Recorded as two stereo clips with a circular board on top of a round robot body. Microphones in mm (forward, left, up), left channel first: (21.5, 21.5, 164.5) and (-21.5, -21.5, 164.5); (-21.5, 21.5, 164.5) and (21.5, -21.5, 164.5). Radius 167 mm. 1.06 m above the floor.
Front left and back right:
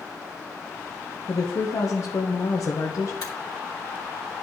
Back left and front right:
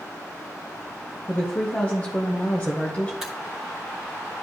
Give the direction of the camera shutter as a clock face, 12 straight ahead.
11 o'clock.